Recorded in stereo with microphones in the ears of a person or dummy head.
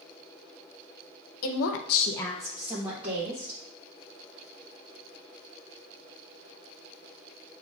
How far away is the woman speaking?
About 0.8 m.